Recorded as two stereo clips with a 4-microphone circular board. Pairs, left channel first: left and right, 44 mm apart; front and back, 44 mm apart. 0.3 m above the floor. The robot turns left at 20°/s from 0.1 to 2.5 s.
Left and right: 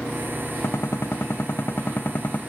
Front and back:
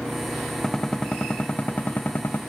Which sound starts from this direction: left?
A gunshot, at 0.6 s.